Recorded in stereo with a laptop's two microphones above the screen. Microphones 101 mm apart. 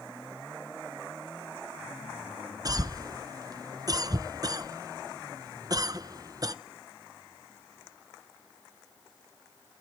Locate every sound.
2.6 s a cough: 40° right (ahead or behind), 0.6 m